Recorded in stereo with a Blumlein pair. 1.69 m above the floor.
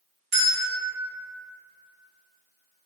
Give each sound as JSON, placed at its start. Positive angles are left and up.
{"t": 0.3, "sound": "a bell", "azimuth_deg": -40, "distance_m": 1.5}